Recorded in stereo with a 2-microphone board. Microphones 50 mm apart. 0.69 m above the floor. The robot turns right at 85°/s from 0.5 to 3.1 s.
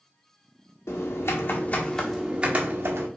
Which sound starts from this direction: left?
Typing on a keyboard, at 0.9 s.